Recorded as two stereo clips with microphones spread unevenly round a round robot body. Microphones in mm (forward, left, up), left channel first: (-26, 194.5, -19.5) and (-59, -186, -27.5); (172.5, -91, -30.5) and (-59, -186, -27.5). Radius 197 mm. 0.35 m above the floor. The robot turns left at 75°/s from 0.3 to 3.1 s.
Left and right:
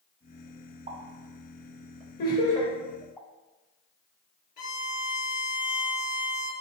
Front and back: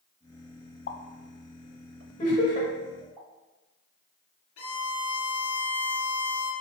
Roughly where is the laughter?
Ahead left.